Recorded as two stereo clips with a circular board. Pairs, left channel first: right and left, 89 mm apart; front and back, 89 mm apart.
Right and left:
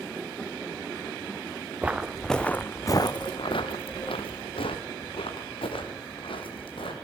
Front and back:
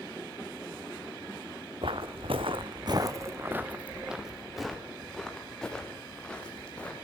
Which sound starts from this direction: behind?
Footsteps, at 1.8 s.